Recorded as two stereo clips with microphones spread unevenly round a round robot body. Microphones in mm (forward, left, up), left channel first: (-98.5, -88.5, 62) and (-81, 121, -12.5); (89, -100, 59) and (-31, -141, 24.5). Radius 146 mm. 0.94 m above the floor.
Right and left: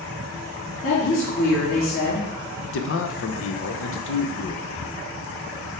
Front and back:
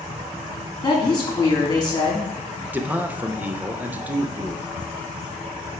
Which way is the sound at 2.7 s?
110° right.